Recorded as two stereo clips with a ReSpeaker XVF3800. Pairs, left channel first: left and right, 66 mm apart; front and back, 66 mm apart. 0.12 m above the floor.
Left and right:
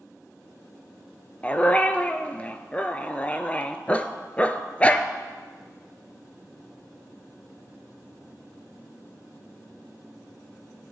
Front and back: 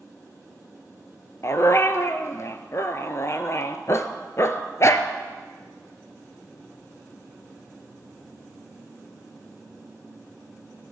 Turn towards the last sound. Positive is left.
turn(degrees=25)